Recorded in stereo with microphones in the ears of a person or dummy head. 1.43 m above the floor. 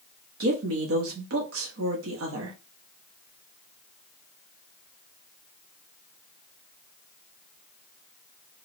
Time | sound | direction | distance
0.4 | a woman speaking | 75° right (ahead or behind) | 0.9 m